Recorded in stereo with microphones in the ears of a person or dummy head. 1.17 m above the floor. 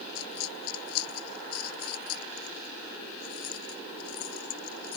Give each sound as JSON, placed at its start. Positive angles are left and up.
{"t": 0.1, "sound": "a dropped coin", "side_deg": 85}